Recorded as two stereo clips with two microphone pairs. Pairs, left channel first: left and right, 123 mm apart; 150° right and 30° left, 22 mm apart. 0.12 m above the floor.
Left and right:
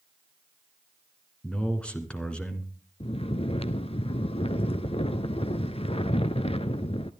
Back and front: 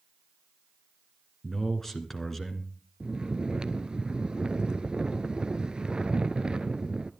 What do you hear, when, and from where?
1.4 s a man speaking: 160° left, 1.7 m
3.0 s snoring: 75° left, 0.6 m